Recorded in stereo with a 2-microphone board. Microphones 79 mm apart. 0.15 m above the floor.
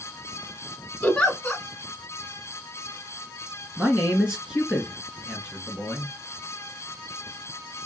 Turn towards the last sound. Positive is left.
turn(degrees=-10)  # may be behind; listen again after turning